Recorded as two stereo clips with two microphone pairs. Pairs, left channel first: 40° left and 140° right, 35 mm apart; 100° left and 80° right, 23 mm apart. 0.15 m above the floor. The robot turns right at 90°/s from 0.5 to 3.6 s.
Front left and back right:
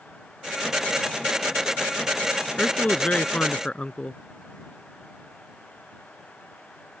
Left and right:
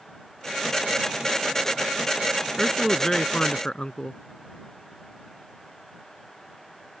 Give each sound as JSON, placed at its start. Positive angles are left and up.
{"t": 2.6, "sound": "a man speaking", "azimuth_deg": -10}